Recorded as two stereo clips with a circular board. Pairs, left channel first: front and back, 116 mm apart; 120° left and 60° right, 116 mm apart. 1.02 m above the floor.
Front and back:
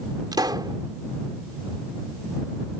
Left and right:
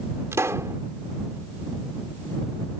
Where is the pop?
125° right.